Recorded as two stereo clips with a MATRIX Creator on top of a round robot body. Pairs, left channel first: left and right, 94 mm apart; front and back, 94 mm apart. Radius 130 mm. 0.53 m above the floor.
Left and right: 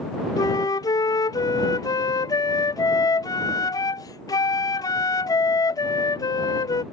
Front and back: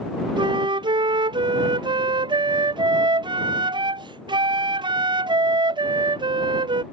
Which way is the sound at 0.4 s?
140° left.